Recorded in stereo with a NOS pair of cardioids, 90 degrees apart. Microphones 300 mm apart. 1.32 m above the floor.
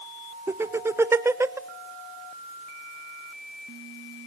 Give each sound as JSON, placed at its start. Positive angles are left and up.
{"t": 0.5, "sound": "laughter", "azimuth_deg": -10, "distance_m": 0.6}